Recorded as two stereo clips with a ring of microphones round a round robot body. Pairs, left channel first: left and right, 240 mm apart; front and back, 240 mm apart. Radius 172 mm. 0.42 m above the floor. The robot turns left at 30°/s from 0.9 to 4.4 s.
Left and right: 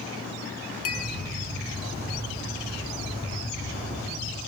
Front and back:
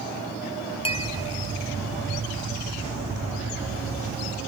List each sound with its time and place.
0.8 s a clink: 65° left, 2.5 m; by 1.1 s 60° left, 2.5 m